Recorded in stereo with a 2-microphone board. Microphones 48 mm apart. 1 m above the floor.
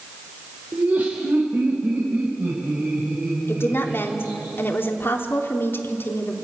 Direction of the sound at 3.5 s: 50° left (ahead or behind).